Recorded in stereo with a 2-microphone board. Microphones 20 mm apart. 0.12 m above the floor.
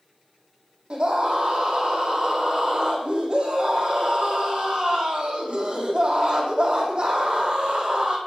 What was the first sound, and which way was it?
A scream, 55° right (ahead or behind).